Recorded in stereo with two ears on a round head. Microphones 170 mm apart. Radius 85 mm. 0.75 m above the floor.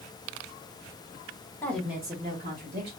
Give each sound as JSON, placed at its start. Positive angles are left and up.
{"t": 1.6, "sound": "a woman speaking", "side_deg": 15, "distance_m": 0.9}